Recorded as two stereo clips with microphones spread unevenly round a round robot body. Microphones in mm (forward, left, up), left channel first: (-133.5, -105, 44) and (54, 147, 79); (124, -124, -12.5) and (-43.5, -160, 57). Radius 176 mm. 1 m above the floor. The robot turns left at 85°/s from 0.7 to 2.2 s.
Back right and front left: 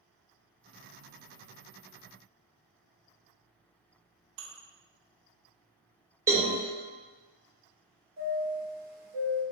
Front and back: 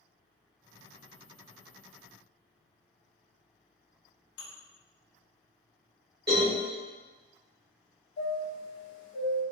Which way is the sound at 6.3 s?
135° left.